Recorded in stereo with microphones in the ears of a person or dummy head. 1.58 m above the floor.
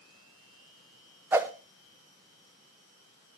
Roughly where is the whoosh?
Centre.